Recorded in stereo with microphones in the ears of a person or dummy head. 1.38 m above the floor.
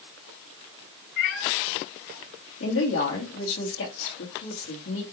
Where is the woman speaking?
65° left (ahead or behind), 1.9 m.